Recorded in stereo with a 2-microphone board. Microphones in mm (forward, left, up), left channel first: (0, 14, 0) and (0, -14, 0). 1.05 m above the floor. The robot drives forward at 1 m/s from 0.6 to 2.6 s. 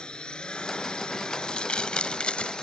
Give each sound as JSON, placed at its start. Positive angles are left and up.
{"t": 0.0, "sound": "a drone", "side_deg": 30}
{"t": 1.3, "sound": "crumpling", "side_deg": 35}